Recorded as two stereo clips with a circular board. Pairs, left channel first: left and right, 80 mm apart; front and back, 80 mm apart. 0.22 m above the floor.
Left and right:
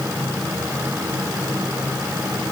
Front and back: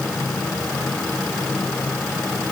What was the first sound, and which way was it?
Only background noise.